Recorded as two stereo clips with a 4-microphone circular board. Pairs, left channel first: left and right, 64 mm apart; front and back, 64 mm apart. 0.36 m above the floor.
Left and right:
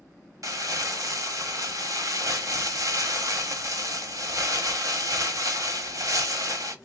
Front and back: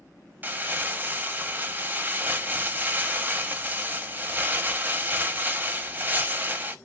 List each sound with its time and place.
0.4 s crumpling: 120° right, 0.8 m